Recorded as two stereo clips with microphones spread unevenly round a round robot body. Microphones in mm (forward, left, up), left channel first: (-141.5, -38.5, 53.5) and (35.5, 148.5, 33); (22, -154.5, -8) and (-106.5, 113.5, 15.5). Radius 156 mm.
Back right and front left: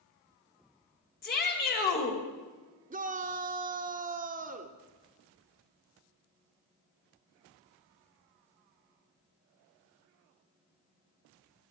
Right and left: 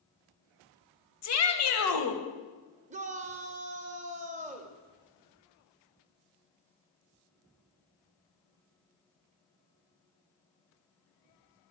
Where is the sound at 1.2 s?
80° right, 1.5 m.